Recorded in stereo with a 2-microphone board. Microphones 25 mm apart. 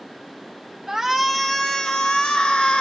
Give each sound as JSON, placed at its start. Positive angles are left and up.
{"t": 0.9, "sound": "a shout", "side_deg": -15, "distance_m": 0.9}